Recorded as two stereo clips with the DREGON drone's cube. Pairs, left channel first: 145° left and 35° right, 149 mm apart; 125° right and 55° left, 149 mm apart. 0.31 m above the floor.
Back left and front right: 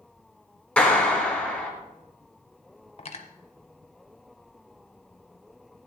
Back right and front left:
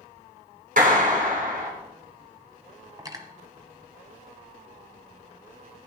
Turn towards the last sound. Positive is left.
turn(degrees=115)